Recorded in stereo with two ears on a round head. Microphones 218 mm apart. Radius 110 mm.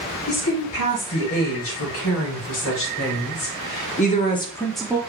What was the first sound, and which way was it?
A woman speaking, 65° left (ahead or behind).